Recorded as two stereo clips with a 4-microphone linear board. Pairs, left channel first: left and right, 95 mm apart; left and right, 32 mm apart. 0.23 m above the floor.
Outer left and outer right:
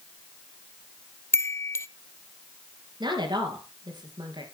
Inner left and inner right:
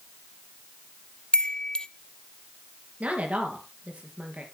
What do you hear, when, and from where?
1.3 s a chime: 30° left (ahead or behind), 0.7 m
3.0 s a woman speaking: 50° right (ahead or behind), 4 m